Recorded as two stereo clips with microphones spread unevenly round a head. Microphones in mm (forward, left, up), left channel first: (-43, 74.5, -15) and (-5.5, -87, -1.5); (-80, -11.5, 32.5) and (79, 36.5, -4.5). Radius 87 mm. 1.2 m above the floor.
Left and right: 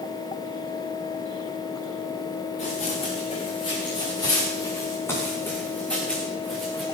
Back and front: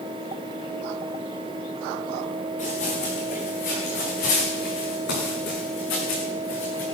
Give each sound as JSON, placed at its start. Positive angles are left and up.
{"t": 2.6, "sound": "running footsteps", "azimuth_deg": 155, "distance_m": 5.0}